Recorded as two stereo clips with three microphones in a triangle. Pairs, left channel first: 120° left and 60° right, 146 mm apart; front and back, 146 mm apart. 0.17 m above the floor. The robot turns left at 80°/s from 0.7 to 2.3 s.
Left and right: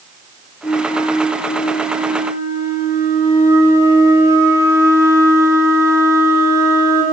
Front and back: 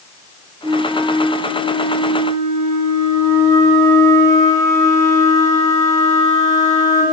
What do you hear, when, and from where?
0.6 s a flute: 100° left, 1.7 m; by 7.0 s 30° right, 1.7 m